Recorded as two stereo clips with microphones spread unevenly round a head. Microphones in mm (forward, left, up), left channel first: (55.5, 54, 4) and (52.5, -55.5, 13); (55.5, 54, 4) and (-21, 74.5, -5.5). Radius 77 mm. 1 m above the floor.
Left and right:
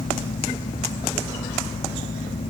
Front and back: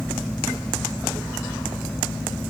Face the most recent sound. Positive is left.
No sound to turn to.